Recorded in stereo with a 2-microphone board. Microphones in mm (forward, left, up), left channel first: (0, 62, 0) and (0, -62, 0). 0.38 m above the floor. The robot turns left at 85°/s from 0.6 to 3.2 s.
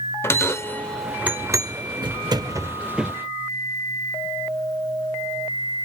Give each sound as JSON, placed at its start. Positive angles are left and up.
{"t": 0.2, "sound": "a bell", "side_deg": 20, "distance_m": 0.5}